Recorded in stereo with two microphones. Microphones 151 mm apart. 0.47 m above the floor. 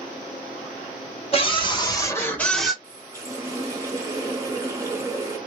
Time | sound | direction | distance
1.3 | a scream | 40° left (ahead or behind) | 2.0 m
2.8 | a running tap | 20° right (ahead or behind) | 1.3 m